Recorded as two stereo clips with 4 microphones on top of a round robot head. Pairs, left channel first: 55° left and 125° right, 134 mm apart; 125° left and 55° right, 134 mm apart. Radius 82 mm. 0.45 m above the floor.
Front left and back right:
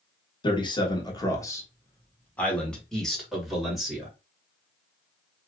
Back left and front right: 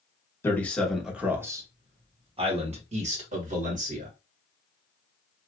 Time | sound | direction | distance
0.4 | a man speaking | 65° left | 1.1 m